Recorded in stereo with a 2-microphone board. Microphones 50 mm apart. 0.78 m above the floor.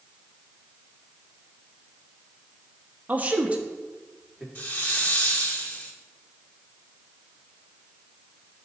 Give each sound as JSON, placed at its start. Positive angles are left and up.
{"t": 3.1, "sound": "a man speaking", "side_deg": -35, "distance_m": 1.0}
{"t": 4.5, "sound": "a hiss", "side_deg": 35, "distance_m": 1.7}